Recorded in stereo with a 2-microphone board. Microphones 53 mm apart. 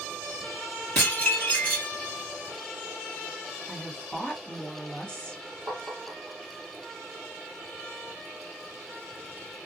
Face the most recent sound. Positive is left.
turn(degrees=-45)  # may be behind; listen again after turning